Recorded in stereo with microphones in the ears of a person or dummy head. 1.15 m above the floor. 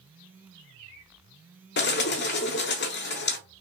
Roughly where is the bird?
Left.